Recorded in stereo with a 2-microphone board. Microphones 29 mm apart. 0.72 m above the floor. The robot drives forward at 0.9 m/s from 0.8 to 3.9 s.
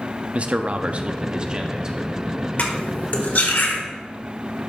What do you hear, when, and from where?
0.3 s a man speaking: 45° right (ahead or behind), 0.7 m; by 2.1 s 20° right (ahead or behind), 1.6 m
2.6 s cutlery clinking: 60° left (ahead or behind), 1.6 m; by 3.8 s 75° left (ahead or behind), 1.5 m